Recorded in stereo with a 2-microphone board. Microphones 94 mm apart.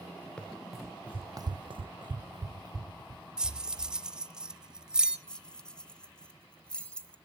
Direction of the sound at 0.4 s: 10° left (ahead or behind).